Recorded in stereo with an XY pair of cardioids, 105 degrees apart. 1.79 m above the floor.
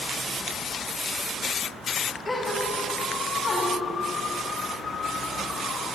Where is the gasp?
40° left, 6.5 m.